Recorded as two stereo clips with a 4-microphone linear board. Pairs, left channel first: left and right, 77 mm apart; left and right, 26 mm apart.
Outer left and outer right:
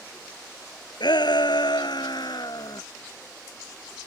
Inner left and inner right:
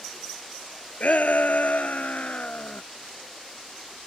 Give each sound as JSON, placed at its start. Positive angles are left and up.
{"t": 1.0, "sound": "a shout", "side_deg": 70}